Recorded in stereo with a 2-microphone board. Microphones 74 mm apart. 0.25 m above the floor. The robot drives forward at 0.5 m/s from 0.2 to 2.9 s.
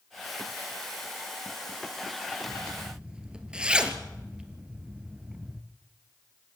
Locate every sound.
2.5 s a zipper: 10° right (ahead or behind), 1.9 m; by 5.6 s 15° right (ahead or behind), 1.7 m